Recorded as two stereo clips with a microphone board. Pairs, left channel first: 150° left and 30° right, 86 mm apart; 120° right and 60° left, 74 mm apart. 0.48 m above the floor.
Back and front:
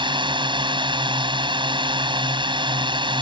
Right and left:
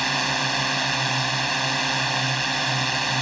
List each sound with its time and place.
0.0 s a drone: 30° right